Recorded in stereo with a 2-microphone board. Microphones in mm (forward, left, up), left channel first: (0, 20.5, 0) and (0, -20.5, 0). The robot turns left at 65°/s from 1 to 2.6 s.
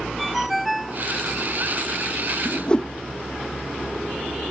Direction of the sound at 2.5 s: 20° left (ahead or behind).